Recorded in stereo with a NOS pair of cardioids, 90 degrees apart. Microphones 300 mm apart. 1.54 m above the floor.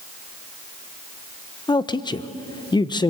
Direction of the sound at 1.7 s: 15° left.